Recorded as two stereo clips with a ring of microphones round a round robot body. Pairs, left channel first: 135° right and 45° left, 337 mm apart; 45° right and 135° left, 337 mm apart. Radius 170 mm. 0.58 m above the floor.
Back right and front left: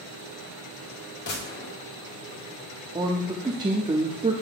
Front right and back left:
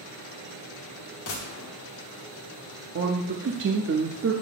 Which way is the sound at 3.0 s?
110° left.